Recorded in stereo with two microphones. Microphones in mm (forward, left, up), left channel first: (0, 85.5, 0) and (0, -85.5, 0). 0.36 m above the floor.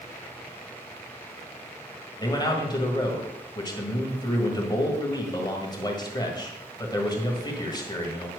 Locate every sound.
2.2 s a man speaking: 25° left (ahead or behind), 1.7 m